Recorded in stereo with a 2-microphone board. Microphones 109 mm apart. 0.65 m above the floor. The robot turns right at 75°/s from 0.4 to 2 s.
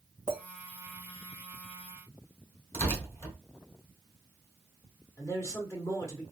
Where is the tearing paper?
25° left (ahead or behind), 2.5 m.